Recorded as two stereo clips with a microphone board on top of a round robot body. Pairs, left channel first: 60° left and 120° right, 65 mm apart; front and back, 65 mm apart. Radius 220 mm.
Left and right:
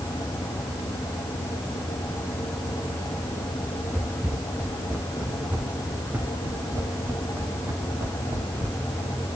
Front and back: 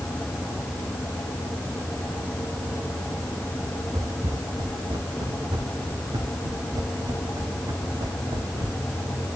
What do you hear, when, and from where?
3.9 s footsteps: 160° left, 5.5 m; by 8.8 s 150° right, 4.5 m